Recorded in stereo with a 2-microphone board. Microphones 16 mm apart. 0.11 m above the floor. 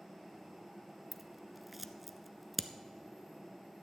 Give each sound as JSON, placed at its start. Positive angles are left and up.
{"t": 1.1, "sound": "scissors", "side_deg": -10, "distance_m": 0.5}